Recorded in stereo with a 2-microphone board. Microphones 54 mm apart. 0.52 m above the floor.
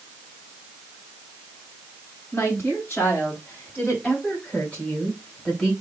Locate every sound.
2.3 s a woman speaking: 45° left (ahead or behind), 3 m; by 5.7 s 10° left (ahead or behind), 2.5 m